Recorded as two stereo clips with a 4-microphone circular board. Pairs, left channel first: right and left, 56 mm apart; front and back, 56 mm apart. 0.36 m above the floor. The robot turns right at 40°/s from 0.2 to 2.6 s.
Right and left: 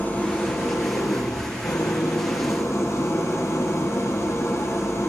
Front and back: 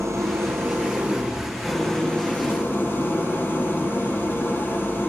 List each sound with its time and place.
0.0 s an engine running: 150° right, 6 m; by 5.1 s 50° right, 6 m